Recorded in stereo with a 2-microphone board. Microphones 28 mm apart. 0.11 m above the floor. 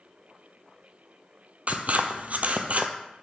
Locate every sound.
1.7 s scissors: 60° right (ahead or behind), 0.7 m